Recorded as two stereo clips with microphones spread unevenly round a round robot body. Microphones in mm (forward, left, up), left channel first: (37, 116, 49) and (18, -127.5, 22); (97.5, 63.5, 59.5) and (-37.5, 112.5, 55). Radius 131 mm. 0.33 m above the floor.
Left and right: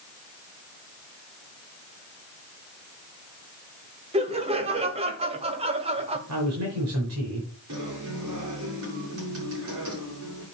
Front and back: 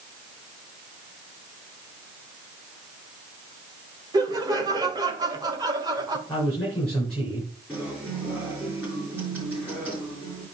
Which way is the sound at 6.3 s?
105° right.